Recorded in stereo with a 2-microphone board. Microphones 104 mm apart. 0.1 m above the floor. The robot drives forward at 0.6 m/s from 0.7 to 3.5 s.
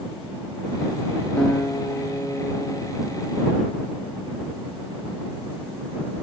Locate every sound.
1.4 s a guitar: 10° left (ahead or behind), 0.9 m; by 3.8 s 5° left (ahead or behind), 2 m